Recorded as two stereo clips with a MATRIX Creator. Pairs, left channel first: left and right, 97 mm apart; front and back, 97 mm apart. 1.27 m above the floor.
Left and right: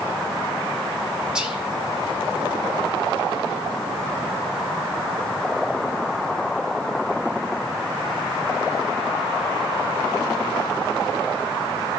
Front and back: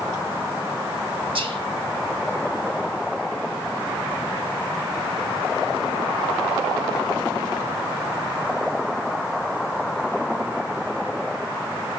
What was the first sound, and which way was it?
Whispering, 170° right.